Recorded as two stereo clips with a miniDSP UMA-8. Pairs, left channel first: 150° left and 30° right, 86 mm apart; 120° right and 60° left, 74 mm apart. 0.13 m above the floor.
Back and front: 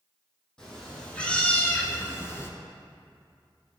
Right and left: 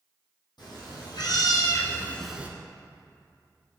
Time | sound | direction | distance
0.6 | a cat meowing | 130° right | 2.0 m